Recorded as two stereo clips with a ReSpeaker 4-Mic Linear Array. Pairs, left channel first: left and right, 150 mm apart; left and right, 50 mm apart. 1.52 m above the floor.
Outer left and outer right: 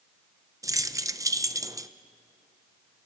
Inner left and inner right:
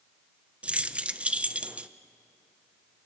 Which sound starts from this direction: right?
Keys jangling, at 0.6 s.